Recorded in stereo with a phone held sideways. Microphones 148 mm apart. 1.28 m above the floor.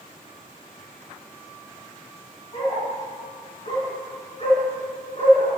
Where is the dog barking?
45° left (ahead or behind), 6 m.